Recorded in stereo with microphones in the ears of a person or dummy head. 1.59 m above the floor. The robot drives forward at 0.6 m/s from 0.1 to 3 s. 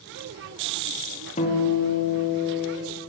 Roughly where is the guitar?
Left.